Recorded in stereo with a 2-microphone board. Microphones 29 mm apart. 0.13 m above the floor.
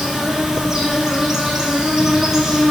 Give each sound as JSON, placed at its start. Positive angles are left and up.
{"t": 0.0, "sound": "an insect", "side_deg": -20, "distance_m": 1.9}